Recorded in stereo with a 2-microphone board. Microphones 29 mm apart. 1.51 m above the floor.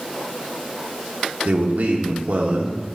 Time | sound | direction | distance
1.4 | a man speaking | 75° right (ahead or behind) | 1.2 m